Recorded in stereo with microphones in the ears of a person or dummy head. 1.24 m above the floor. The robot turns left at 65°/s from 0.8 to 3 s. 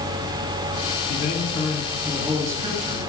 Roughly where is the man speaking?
Left.